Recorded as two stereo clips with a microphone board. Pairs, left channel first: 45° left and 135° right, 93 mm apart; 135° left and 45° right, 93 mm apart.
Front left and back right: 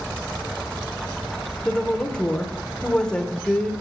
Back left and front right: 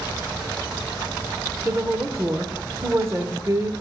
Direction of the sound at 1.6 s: 25° right.